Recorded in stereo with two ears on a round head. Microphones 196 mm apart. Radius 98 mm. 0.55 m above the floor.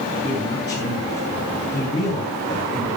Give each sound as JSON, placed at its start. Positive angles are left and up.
{"t": 0.2, "sound": "a man speaking", "side_deg": 20, "distance_m": 8.0}